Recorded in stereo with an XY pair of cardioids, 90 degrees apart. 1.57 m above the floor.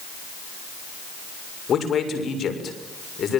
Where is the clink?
No clink in this recording.